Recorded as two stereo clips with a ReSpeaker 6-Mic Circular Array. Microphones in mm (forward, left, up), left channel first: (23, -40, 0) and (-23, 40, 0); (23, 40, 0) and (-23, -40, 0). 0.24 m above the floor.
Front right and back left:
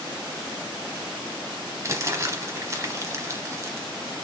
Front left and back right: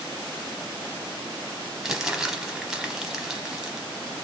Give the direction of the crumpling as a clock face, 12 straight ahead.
7 o'clock.